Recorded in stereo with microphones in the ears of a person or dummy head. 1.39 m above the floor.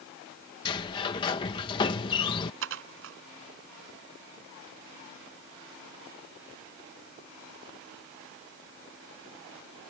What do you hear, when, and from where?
0.7 s a sliding door: 25° left (ahead or behind)
2.6 s dishes clattering: 75° right (ahead or behind)